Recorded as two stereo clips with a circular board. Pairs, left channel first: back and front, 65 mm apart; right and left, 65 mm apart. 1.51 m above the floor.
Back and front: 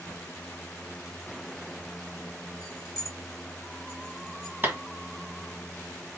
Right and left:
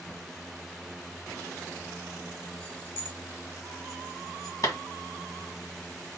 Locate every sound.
2.6 s keys jangling: 160° right, 1.6 m; by 4.6 s 110° right, 3 m
4.6 s a clap: 60° right, 1.5 m